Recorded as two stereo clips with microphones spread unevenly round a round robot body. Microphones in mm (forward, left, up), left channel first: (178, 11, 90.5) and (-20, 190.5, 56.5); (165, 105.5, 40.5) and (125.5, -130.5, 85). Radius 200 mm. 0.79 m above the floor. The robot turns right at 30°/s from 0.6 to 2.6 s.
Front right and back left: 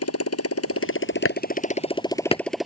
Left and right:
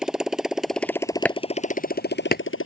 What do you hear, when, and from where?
0.0 s a motorcycle: 10° right; by 2.7 s 50° left
1.2 s chopping: 5° right; by 2.4 s 30° left